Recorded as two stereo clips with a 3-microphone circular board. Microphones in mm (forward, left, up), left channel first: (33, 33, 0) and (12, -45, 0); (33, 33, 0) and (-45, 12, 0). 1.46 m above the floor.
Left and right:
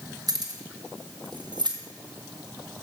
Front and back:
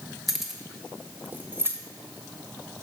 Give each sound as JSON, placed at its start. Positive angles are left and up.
{"t": 0.3, "sound": "keys jangling", "azimuth_deg": -75, "distance_m": 1.1}